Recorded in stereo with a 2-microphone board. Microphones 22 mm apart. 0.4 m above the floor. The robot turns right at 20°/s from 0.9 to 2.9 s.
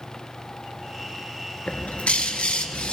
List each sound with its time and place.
1.7 s a bird: 80° left, 1.1 m; by 2.9 s 65° left (ahead or behind), 1.1 m